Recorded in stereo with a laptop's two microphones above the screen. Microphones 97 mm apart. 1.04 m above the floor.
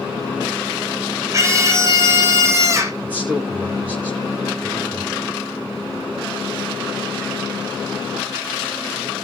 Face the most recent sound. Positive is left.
turn(degrees=-15)  # may be behind; listen again after turning